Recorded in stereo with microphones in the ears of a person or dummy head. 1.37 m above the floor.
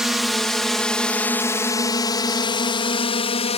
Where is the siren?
No siren in this recording.